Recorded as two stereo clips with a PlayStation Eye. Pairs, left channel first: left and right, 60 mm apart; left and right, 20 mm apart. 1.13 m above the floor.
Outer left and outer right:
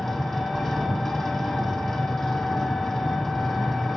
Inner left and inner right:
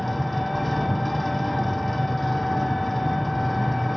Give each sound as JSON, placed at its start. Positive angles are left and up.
{"t": 0.0, "sound": "an engine running", "side_deg": 5, "distance_m": 1.2}